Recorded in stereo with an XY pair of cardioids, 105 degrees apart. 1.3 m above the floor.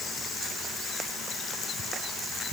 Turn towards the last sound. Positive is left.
No sound to turn to.